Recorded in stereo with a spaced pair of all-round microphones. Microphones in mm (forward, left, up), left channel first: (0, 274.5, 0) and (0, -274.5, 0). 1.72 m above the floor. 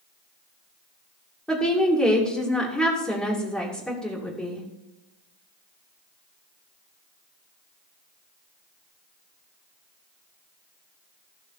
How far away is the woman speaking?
About 2.5 m.